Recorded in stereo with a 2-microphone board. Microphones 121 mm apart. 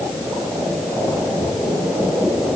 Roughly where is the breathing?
No breathing in this recording.